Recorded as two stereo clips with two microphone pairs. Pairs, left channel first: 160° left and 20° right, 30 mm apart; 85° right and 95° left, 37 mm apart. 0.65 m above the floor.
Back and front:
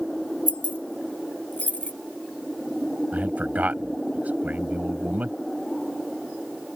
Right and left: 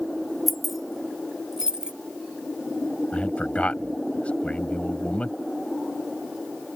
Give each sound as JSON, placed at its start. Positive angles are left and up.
{"t": 0.5, "sound": "keys jangling", "azimuth_deg": -170}
{"t": 3.1, "sound": "a man speaking", "azimuth_deg": -35}